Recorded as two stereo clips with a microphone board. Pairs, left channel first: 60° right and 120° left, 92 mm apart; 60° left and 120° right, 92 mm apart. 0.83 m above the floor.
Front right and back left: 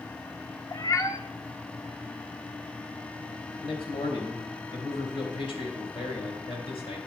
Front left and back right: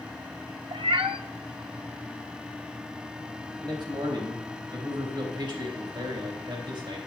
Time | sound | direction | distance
0.7 | a cat meowing | 110° right | 0.6 m
3.6 | a man speaking | 80° right | 3.5 m